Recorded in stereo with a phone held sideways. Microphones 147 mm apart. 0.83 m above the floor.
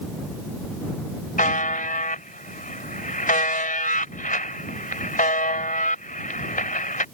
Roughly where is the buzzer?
Left.